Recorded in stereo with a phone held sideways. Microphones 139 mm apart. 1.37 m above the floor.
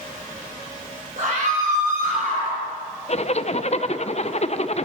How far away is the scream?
About 6 m.